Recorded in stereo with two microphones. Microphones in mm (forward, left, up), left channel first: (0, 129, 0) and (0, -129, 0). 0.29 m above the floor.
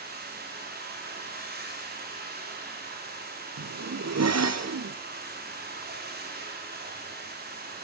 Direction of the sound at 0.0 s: 40° right (ahead or behind).